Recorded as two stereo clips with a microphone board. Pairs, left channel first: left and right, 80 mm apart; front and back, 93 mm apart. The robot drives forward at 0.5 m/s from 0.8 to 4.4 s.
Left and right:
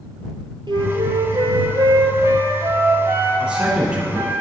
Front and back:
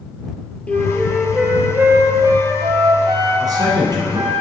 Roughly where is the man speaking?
Behind.